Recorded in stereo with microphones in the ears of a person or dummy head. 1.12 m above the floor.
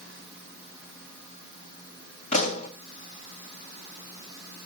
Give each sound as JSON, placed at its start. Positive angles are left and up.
{"t": 2.3, "sound": "a pop", "side_deg": 40, "distance_m": 1.8}